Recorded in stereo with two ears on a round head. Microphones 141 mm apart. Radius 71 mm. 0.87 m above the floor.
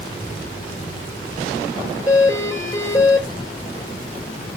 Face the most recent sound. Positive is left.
turn(degrees=25)  # may be behind; listen again after turning